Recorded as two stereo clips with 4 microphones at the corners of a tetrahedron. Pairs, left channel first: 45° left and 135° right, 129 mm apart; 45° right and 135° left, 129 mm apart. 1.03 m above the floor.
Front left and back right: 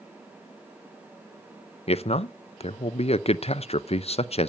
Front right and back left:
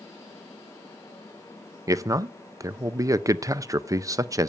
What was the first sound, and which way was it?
A man speaking, 75° left.